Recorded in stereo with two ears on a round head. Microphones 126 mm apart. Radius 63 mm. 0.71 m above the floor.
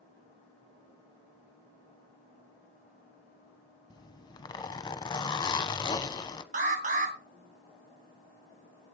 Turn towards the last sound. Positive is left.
turn(degrees=-55)  # may be behind; listen again after turning